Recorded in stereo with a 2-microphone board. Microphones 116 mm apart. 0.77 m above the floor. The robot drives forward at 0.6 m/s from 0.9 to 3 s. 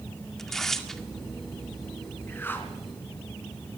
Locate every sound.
0.4 s tearing paper: 5° left (ahead or behind), 1.9 m
2.3 s a whoosh: 15° left (ahead or behind), 3.5 m